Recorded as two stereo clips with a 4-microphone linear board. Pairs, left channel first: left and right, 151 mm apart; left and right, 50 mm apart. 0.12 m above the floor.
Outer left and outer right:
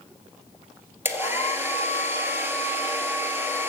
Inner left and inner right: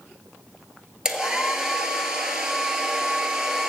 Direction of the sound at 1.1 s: 15° right (ahead or behind).